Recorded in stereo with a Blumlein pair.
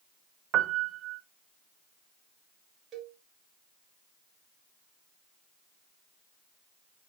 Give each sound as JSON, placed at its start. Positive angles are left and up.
{"t": 0.5, "sound": "a piano", "azimuth_deg": -30, "distance_m": 0.7}
{"t": 2.9, "sound": "a cowbell", "azimuth_deg": -30, "distance_m": 2.0}